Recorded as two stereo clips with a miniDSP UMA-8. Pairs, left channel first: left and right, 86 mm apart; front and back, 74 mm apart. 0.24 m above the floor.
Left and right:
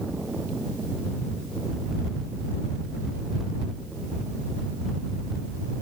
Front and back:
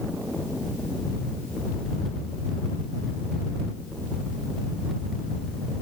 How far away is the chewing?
I don't hear chewing.